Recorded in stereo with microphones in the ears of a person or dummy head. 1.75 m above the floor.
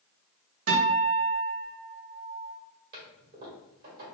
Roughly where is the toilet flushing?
Right.